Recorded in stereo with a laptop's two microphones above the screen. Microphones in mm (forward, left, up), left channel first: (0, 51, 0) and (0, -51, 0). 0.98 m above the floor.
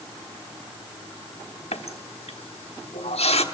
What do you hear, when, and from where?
1.7 s a running tap: 80° left, 1.1 m